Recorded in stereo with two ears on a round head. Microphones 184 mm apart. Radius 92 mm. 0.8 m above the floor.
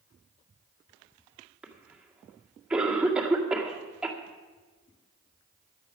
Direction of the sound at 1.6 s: 5° right (ahead or behind).